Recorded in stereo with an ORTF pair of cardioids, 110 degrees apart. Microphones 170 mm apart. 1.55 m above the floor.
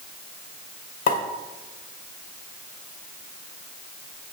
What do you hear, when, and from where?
1.1 s a pop: 50° left, 1.8 m